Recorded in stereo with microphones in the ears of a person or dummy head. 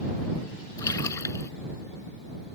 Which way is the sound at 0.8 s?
15° left (ahead or behind).